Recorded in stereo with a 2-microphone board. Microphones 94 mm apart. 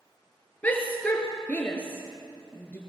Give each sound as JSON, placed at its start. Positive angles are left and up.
{"t": 0.6, "sound": "a shout", "side_deg": 15, "distance_m": 2.0}